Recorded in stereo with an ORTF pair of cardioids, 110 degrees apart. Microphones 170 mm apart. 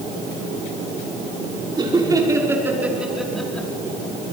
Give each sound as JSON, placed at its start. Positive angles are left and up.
{"t": 1.8, "sound": "laughter", "azimuth_deg": -25, "distance_m": 5.0}